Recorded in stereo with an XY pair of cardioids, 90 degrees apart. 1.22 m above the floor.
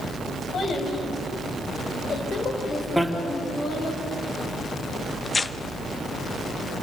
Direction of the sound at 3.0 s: Straight ahead.